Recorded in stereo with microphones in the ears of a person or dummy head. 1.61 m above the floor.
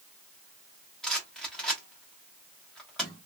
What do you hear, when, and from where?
1.0 s a rattle: centre (ahead or behind), 1.0 m